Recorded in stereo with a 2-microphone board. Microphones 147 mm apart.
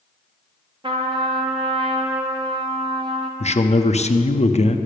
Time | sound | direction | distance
0.8 | a trumpet | 35° right (ahead or behind) | 1.3 m
3.4 | a man speaking | 45° left (ahead or behind) | 0.7 m